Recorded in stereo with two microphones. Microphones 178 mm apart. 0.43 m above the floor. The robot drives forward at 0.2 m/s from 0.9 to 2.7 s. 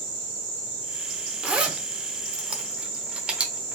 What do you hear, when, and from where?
1.4 s a zipper: 5° right (ahead or behind), 0.8 m